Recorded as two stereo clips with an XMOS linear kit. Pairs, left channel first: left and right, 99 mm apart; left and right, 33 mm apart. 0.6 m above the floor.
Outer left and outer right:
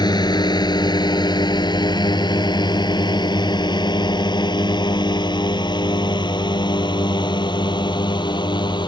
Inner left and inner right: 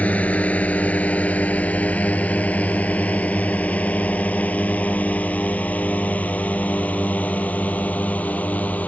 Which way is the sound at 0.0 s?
45° left (ahead or behind).